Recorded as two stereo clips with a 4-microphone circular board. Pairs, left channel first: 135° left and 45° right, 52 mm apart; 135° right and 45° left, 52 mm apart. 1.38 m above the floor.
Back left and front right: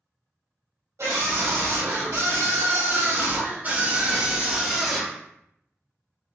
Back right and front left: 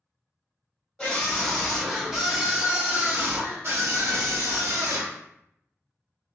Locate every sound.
1.0 s a scream: 55° right, 1.5 m; by 5.2 s 40° left, 1.4 m